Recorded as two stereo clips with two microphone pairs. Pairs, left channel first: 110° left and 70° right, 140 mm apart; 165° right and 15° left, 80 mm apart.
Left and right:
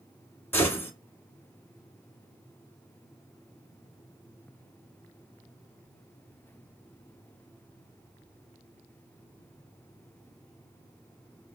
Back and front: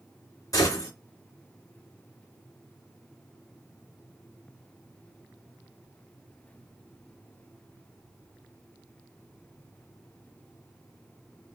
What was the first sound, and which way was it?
A gunshot, straight behind.